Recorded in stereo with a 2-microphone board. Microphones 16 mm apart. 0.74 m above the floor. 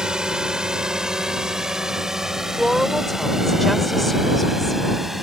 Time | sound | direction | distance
0.0 | a drone | 55° right (ahead or behind) | ?
2.6 | a woman speaking | 15° left (ahead or behind) | ?